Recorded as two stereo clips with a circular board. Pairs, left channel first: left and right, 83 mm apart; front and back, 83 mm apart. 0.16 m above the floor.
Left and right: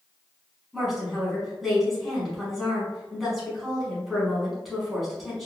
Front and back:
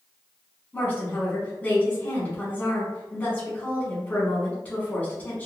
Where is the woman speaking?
5° right, 1.4 m.